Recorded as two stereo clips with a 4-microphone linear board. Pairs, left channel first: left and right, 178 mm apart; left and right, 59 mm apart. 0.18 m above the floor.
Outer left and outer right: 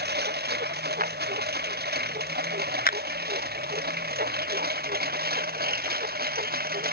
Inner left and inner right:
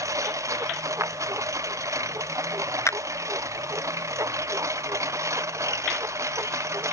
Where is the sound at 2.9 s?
65° left (ahead or behind).